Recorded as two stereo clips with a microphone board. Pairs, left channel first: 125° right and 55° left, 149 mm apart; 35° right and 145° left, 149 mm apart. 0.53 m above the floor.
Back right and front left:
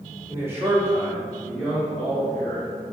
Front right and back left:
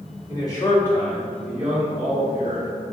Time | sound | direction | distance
0.3 | a man speaking | straight ahead | 1.1 m